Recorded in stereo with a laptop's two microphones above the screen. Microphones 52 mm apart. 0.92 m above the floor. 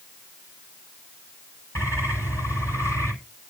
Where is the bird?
70° left (ahead or behind), 8 m.